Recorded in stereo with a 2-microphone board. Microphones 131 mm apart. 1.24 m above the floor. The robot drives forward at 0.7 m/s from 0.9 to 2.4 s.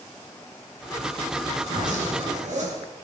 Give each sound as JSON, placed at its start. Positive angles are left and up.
{"t": 1.6, "sound": "a zipper", "side_deg": -65, "distance_m": 8.0}